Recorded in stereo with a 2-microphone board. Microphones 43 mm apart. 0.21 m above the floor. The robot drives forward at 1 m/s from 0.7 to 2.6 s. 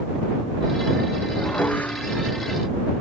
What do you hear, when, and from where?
1.4 s dishes clattering: 40° left (ahead or behind)